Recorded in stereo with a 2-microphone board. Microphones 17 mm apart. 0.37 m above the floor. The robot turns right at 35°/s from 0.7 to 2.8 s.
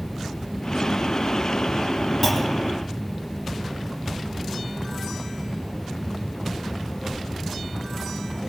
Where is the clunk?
15° left (ahead or behind), 2.5 m; by 2.8 s 30° left (ahead or behind), 2.5 m.